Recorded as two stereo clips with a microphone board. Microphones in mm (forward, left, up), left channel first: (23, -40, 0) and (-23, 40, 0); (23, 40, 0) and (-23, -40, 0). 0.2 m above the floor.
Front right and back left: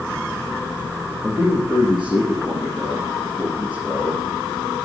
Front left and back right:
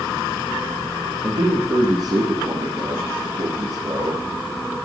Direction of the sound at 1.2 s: 150° right.